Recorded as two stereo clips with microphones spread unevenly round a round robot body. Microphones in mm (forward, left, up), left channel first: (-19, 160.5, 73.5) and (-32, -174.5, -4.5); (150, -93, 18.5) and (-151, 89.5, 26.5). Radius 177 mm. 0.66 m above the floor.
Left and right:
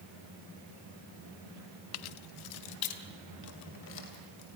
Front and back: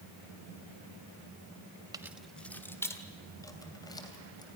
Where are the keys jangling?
70° left, 0.5 m; by 4.5 s 50° left, 3.5 m.